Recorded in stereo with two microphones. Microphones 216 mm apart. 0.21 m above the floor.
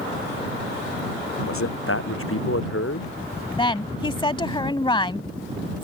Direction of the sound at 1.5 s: 85° left.